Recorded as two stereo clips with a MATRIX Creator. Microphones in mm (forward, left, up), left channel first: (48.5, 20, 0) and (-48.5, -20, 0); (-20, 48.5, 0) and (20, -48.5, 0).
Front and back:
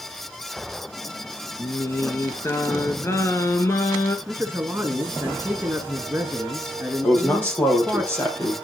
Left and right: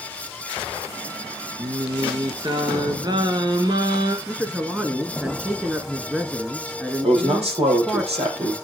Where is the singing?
35° right, 1.2 m.